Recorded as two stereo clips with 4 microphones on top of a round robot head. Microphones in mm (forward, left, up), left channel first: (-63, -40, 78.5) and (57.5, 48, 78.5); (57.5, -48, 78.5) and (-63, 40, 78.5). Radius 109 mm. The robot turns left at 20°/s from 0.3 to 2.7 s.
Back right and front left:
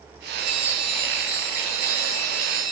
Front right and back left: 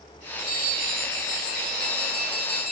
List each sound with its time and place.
0.4 s a bell: 55° left, 1.9 m; by 2.7 s 5° left, 1.9 m